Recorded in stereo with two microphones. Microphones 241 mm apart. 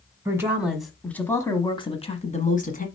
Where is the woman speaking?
10° right (ahead or behind), 1.2 m; by 2.9 s 35° left (ahead or behind), 1.5 m.